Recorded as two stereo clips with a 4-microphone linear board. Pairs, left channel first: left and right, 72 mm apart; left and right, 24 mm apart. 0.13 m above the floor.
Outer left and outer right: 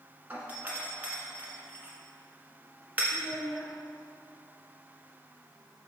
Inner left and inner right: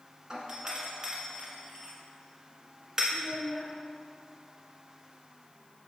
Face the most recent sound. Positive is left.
turn(degrees=5)  # may be behind; listen again after turning